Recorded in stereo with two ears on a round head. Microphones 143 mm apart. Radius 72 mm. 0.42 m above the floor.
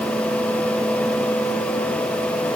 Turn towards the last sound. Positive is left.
No sound to turn to.